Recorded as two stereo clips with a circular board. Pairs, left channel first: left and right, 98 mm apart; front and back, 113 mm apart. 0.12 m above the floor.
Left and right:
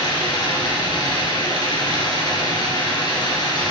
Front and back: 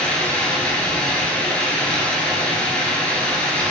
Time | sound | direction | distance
0.0 | running water | 75° left | 1.7 m